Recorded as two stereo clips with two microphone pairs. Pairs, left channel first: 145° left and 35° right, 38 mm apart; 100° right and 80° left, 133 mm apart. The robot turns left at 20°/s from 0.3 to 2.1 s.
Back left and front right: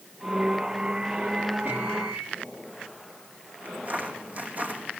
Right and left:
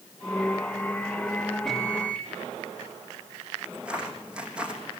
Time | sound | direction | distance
1.6 | a microwave | 10° right | 3 m
3.6 | footsteps | straight ahead | 4.5 m